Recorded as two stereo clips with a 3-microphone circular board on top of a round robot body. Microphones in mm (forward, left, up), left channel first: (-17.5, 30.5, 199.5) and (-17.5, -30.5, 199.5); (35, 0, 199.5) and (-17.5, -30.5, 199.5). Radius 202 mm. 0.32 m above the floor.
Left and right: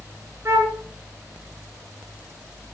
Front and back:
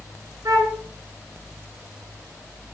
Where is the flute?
135° right, 2.5 m.